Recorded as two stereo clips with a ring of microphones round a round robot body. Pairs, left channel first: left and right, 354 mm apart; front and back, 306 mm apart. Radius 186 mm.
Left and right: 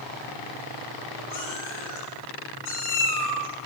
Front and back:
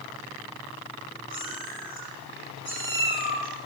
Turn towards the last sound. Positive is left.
turn(degrees=50)